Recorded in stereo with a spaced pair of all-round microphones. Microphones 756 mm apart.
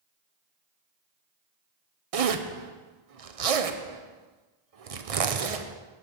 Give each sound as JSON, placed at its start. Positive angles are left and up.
{"t": 2.1, "sound": "a zipper", "side_deg": -50, "distance_m": 0.7}